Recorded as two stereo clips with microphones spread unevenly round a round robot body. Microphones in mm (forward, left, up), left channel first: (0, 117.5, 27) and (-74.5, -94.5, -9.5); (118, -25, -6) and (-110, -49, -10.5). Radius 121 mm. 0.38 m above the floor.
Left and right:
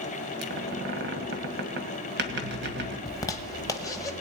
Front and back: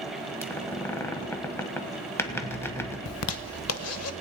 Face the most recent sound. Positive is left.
turn(degrees=-10)